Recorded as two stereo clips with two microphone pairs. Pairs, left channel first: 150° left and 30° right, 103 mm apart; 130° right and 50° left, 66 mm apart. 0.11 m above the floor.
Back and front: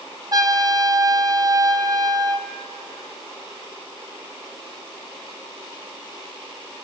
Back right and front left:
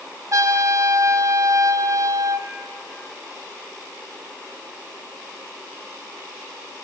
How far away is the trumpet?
About 1.0 m.